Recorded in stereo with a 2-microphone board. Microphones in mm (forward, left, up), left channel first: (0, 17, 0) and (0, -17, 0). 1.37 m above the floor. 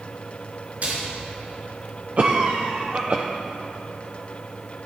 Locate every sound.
0.8 s a splash: 50° right (ahead or behind), 3.5 m
2.2 s a cough: 50° right (ahead or behind), 0.7 m